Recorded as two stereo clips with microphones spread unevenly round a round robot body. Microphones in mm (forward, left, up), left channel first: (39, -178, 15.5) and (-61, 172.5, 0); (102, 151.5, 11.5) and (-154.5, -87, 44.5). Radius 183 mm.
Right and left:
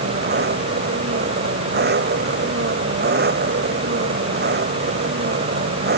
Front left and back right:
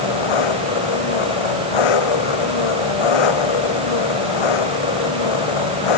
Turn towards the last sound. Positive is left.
turn(degrees=40)